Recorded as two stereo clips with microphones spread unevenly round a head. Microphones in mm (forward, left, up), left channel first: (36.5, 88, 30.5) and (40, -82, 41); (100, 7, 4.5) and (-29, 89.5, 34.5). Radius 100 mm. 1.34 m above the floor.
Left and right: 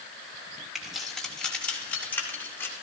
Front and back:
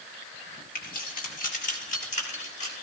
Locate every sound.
0.8 s keys jangling: straight ahead, 2.5 m; by 2.7 s 15° left, 3.5 m